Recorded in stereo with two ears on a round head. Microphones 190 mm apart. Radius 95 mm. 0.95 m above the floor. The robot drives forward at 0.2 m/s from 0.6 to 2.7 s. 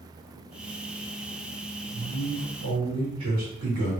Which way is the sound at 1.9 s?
80° right.